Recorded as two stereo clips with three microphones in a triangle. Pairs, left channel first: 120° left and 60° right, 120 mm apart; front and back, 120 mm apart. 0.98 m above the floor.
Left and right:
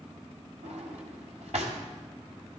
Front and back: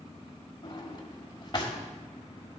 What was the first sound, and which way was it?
A drawer, 50° right.